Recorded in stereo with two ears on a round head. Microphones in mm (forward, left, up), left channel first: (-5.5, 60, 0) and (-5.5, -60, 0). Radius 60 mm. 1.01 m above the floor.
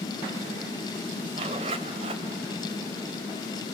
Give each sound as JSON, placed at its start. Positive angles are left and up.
{"t": 1.3, "sound": "a zipper", "side_deg": -45, "distance_m": 2.5}